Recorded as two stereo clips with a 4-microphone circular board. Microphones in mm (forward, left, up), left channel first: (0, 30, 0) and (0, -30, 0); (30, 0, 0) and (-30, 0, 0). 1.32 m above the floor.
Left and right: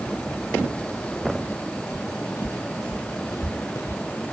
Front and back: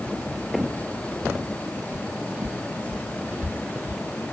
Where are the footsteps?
110° left; by 4.0 s 120° left.